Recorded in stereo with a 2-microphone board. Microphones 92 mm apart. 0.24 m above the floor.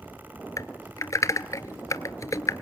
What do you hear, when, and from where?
0.6 s typing on a keyboard: 40° left (ahead or behind), 0.7 m